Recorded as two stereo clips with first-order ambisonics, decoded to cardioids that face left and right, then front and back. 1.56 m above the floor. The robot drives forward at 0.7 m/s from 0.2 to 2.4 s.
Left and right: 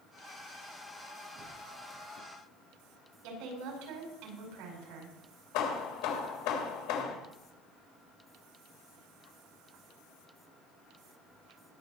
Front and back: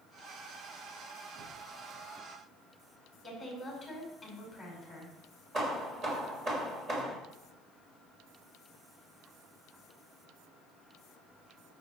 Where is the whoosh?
140° right, 2 m; by 1.6 s 145° right, 2.5 m.